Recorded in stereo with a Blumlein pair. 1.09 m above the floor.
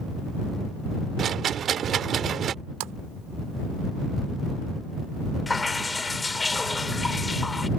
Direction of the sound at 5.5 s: 10° left.